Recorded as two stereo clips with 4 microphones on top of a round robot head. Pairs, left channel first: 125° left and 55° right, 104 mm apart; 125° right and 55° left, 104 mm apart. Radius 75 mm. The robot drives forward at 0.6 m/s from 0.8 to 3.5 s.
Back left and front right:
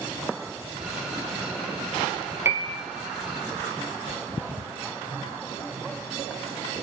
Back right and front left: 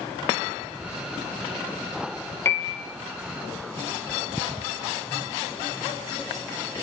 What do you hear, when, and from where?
2.5 s a piano: 90° right, 1.1 m; by 2.9 s 115° right, 1.1 m